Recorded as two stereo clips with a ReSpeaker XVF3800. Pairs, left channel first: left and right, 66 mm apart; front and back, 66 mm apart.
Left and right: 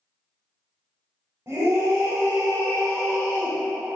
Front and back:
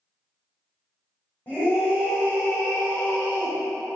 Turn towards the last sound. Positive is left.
turn(degrees=-60)